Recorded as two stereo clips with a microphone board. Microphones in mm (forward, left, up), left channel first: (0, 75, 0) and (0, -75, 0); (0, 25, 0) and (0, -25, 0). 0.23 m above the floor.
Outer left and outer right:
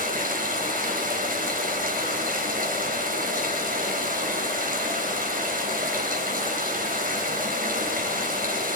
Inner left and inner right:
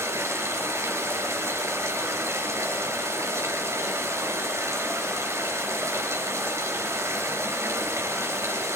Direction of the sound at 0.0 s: 65° right (ahead or behind).